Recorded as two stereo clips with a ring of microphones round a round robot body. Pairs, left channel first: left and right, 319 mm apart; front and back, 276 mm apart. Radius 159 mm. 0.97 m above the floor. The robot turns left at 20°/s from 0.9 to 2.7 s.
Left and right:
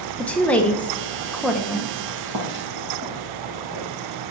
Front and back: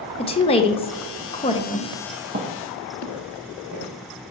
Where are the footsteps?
125° right, 2 m; by 3.9 s straight behind, 3.5 m.